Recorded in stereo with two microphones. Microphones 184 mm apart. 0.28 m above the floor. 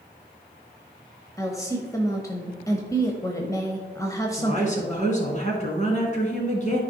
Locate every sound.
1.4 s a woman speaking: 20° left (ahead or behind), 1.0 m
4.3 s a woman speaking: 40° left (ahead or behind), 2.5 m